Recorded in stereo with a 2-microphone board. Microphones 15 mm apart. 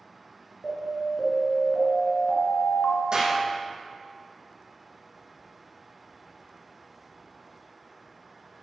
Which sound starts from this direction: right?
A clap, at 3.1 s.